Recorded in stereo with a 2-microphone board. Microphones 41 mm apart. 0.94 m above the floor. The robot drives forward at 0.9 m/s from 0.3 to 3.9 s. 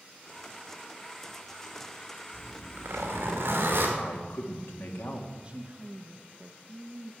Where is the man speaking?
70° left (ahead or behind), 1.7 m.